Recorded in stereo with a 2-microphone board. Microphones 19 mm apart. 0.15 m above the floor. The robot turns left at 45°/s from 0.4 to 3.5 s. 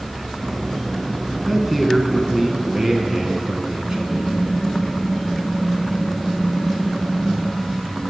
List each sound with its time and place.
1.5 s a man speaking: 5° right, 1.2 m; by 4.4 s 95° right, 1.2 m
3.9 s typing on a keyboard: 45° left (ahead or behind), 1.0 m